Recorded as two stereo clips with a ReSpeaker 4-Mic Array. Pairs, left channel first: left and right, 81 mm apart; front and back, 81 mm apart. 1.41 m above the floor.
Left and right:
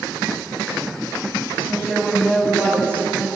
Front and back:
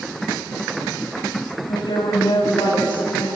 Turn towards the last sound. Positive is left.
turn(degrees=15)